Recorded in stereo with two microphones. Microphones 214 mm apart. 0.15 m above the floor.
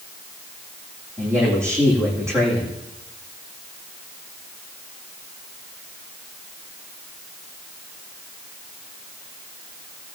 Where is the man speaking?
10° right (ahead or behind), 7.5 m.